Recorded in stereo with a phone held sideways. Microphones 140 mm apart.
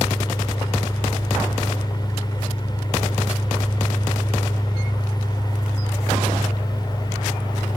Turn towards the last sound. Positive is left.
turn(degrees=30)  # may be behind; listen again after turning